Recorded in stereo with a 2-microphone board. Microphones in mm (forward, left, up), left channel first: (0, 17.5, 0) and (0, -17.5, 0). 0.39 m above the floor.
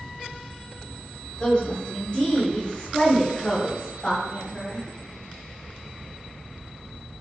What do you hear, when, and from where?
1.4 s a woman speaking: 30° left (ahead or behind), 1.3 m